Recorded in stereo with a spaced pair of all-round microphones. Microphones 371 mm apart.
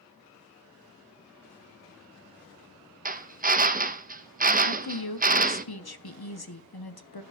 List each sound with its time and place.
3.0 s a drill: 25° right (ahead or behind), 0.6 m
4.7 s a woman speaking: 80° left, 0.9 m